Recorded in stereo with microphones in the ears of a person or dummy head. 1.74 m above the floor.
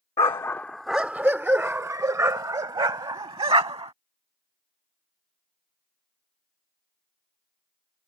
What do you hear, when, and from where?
0.2 s a dog barking: 15° left (ahead or behind); by 3.9 s 25° right (ahead or behind)